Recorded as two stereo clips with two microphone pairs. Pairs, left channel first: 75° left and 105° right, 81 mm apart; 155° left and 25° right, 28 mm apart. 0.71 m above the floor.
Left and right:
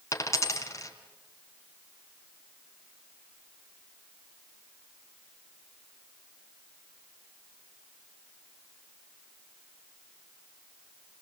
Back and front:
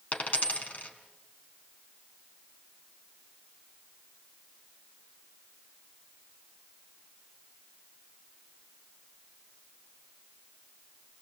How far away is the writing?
No writing in this recording.